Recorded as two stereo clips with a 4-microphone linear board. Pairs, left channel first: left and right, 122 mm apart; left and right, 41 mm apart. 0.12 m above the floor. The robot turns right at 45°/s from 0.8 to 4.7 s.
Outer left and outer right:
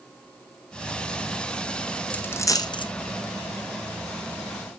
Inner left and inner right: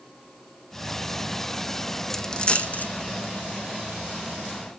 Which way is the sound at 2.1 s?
10° left (ahead or behind).